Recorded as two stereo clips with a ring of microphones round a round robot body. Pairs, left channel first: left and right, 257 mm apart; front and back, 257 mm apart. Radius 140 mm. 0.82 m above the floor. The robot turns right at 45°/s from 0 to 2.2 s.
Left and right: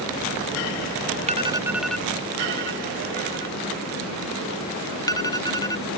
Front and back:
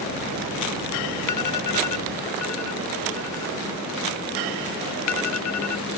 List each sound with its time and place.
1.3 s an alarm: 25° right; by 6.0 s 15° left